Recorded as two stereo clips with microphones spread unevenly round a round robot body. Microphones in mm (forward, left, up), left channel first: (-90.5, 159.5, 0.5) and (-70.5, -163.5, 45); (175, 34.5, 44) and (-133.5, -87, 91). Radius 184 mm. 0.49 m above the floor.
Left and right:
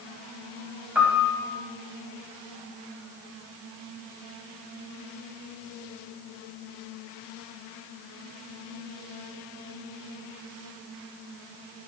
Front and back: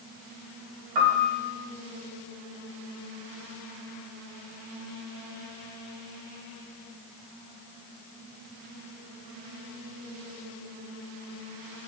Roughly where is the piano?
Behind.